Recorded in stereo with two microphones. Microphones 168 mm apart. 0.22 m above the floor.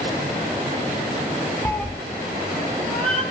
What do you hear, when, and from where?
1.6 s a cat meowing: 15° left (ahead or behind), 0.6 m; by 3.2 s 5° left (ahead or behind), 2 m